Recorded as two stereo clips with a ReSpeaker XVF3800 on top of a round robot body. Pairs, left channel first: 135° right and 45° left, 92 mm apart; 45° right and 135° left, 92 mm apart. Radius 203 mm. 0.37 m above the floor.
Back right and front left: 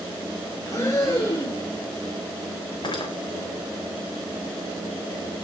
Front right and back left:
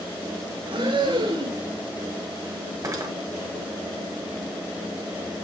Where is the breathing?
165° left, 7 m.